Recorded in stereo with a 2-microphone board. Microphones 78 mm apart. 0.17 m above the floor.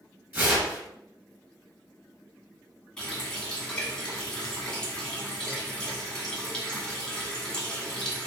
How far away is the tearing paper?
About 1.5 m.